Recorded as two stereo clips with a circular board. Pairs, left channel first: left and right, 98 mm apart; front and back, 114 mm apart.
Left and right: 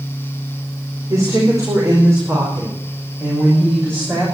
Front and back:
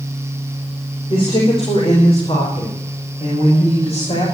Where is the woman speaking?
35° right, 4 m; by 4.2 s 25° right, 6 m.